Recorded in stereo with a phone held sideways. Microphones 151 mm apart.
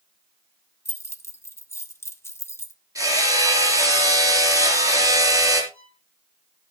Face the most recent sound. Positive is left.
turn(degrees=-80)